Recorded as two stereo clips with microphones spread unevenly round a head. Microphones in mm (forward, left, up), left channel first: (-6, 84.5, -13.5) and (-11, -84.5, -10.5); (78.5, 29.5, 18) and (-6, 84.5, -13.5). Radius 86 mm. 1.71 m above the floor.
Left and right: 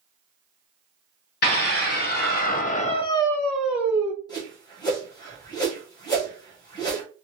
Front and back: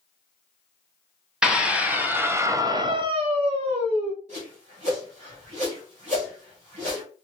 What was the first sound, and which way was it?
A scream, 60° left.